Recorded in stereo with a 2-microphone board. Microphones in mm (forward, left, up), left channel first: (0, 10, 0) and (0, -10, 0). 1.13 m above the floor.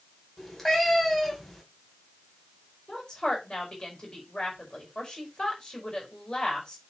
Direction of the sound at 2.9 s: 35° left (ahead or behind).